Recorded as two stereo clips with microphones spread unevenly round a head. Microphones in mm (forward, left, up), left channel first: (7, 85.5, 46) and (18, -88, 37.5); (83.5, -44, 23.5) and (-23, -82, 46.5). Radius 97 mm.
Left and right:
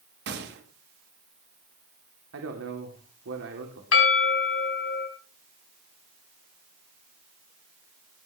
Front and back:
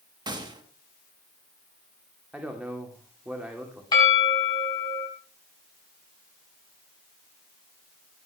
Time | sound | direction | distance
0.3 | a gunshot | 105° right | 2.5 m
2.3 | a man speaking | 80° right | 2.5 m
3.9 | a bell | 90° left | 5 m